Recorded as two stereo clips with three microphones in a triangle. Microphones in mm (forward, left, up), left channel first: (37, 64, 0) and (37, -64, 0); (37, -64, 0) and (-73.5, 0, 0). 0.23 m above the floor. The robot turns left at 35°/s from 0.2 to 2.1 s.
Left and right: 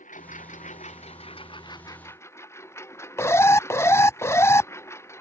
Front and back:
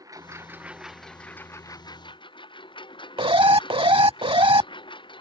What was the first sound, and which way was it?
A lawn mower, 85° left.